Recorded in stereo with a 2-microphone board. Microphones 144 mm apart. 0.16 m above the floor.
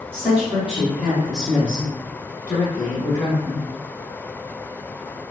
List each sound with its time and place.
0.1 s a woman speaking: 15° right (ahead or behind), 1.5 m; by 3.6 s 40° left (ahead or behind), 1.5 m